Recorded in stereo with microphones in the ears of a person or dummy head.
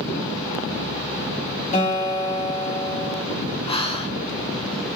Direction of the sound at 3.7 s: 20° left (ahead or behind).